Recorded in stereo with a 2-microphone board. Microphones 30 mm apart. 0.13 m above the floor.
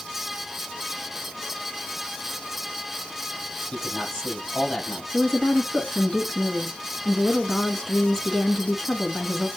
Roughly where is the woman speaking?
Centre.